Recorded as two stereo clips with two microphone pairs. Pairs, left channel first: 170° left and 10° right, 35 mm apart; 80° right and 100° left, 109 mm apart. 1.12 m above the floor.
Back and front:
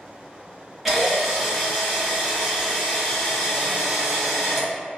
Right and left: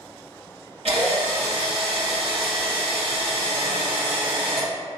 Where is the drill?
75° left, 1.2 m.